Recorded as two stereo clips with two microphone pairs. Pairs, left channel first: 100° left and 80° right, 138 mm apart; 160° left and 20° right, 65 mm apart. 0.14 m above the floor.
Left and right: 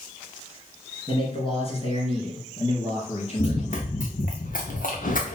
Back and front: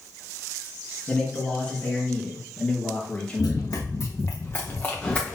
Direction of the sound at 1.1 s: 95° left.